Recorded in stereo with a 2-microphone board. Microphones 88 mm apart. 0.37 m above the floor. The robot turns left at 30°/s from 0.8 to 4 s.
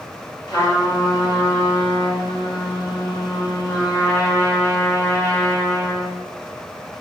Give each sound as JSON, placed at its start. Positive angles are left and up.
{"t": 0.5, "sound": "a trumpet", "azimuth_deg": 125, "distance_m": 2.5}